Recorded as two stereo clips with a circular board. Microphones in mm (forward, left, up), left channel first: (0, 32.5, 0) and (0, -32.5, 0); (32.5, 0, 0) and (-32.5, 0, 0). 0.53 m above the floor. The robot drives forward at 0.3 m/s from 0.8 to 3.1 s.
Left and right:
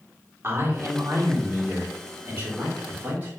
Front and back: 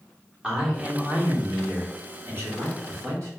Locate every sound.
0.4 s a man speaking: 115° right, 0.9 m; by 3.3 s 150° right, 1.3 m